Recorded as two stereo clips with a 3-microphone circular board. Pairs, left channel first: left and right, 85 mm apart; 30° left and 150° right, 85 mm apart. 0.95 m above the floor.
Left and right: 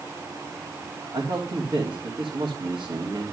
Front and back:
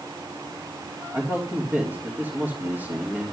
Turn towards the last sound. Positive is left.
turn(degrees=-90)